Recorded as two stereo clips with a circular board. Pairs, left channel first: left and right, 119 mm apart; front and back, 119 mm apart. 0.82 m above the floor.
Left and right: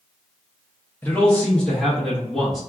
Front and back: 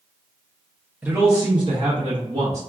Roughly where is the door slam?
I don't hear a door slam.